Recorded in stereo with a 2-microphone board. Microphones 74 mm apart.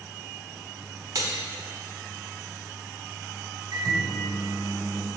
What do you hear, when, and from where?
1.1 s cutlery clinking: 55° right (ahead or behind), 1.0 m
3.7 s a microwave: 70° right (ahead or behind), 1.5 m